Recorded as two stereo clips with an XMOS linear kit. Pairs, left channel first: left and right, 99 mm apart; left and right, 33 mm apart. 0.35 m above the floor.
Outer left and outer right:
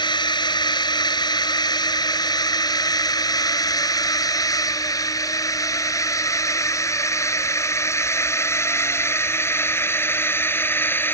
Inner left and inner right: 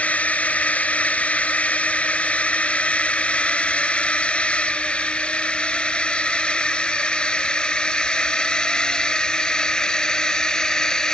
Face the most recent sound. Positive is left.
turn(degrees=20)  # may be behind; listen again after turning